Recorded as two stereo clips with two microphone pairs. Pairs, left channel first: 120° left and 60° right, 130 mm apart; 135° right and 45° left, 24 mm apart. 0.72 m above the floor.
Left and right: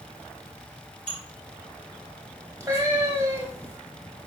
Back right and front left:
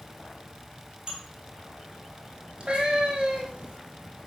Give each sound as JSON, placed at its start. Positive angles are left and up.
{"t": 1.1, "sound": "dishes clattering", "azimuth_deg": 115, "distance_m": 1.4}
{"t": 2.6, "sound": "a cat meowing", "azimuth_deg": 5, "distance_m": 1.1}